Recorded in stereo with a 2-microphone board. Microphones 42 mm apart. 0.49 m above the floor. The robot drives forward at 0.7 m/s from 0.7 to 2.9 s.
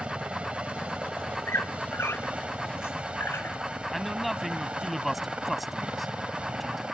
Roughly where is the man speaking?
Centre.